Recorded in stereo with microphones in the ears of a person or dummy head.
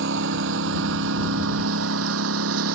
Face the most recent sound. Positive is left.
turn(degrees=-80)